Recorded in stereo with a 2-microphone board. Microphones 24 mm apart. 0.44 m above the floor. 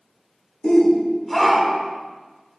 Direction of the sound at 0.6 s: 20° left (ahead or behind).